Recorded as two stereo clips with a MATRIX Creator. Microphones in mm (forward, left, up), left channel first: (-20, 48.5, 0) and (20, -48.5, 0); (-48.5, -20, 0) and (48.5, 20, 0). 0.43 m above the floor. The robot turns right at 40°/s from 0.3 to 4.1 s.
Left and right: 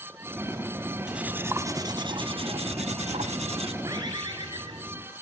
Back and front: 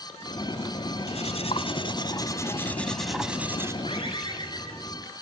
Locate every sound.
1.1 s cutlery clinking: 150° right, 1.6 m; by 3.7 s 45° right, 1.6 m
3.8 s a bird: 125° right, 8 m; by 5.0 s 115° right, 8 m